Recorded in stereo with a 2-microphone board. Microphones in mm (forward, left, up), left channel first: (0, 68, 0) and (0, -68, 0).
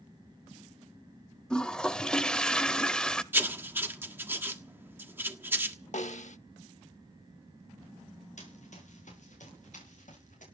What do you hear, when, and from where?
1.5 s a toilet flushing: 5° left (ahead or behind), 0.7 m
3.3 s writing: 15° right (ahead or behind), 1.4 m
5.9 s a snare drum: 65° left (ahead or behind), 0.8 m
8.4 s running footsteps: 65° left (ahead or behind), 8.5 m; by 10.4 s 70° left (ahead or behind), 9.5 m